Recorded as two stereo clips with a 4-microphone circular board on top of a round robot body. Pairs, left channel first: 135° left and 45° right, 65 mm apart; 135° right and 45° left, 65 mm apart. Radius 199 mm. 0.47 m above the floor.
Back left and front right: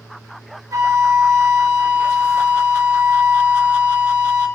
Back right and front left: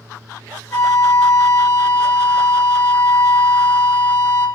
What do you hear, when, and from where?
0.7 s a flute: 85° right, 1.1 m